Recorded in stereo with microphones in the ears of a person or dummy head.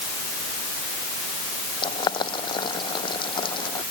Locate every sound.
1.8 s boiling: 30° left (ahead or behind)